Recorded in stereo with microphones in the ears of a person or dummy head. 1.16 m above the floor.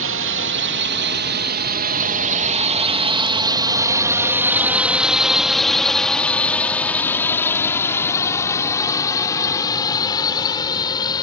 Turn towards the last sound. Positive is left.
turn(degrees=25)  # may be behind; listen again after turning